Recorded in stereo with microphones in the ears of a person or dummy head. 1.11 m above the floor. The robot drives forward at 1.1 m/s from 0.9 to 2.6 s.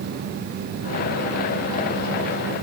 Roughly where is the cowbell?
I don't hear a cowbell.